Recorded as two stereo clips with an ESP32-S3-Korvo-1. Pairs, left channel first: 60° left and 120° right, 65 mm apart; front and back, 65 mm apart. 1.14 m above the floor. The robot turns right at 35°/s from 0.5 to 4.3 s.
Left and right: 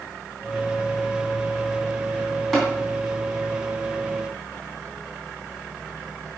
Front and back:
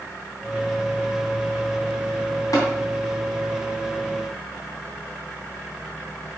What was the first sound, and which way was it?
Tapping, 30° right.